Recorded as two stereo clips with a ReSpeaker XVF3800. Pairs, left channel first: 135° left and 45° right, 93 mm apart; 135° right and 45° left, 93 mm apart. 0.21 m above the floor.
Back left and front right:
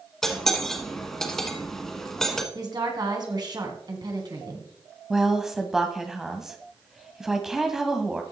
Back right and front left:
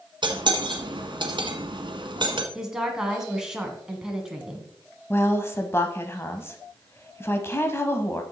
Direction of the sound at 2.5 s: 35° right.